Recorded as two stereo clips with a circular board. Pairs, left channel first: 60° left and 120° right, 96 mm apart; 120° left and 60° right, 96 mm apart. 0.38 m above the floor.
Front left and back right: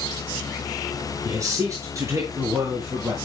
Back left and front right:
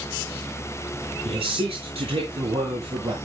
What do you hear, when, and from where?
1.2 s a man speaking: 65° right, 5.5 m; by 3.1 s 60° right, 7 m